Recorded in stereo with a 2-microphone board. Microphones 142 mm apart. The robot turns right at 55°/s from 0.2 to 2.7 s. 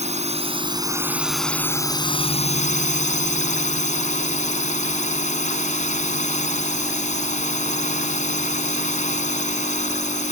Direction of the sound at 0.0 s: 65° right.